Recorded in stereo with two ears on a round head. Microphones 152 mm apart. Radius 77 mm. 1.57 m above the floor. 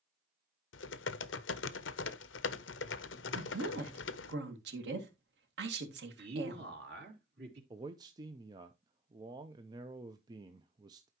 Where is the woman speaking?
80° right, 2 m.